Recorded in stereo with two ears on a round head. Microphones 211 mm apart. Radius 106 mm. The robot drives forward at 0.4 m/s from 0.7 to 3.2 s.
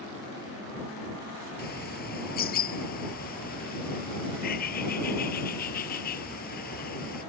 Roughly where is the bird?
Left.